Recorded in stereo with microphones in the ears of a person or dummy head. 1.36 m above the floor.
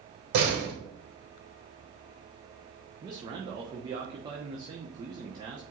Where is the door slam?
65° right (ahead or behind), 3.5 m.